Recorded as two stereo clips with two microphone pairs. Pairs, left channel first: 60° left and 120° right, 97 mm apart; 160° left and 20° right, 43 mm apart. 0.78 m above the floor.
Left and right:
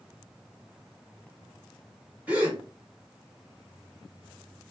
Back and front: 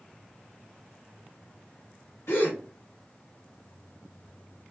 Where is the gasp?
170° left, 1.1 m.